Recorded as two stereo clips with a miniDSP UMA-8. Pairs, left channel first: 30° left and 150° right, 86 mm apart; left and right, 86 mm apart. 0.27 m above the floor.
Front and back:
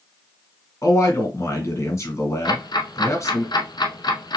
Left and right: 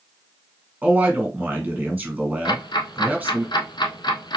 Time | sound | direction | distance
0.8 | a man speaking | 20° right | 2 m
2.5 | ticking | 60° left | 0.8 m